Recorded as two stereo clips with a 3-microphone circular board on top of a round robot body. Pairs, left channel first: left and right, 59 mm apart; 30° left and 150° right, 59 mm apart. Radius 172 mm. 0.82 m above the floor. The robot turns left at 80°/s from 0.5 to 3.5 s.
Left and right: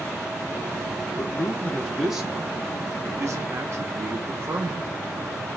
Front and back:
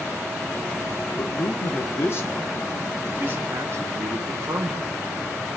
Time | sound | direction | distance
1.2 | a man speaking | 70° left | 0.9 m